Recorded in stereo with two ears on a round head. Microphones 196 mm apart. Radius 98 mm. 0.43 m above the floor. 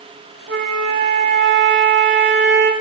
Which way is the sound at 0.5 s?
60° right (ahead or behind).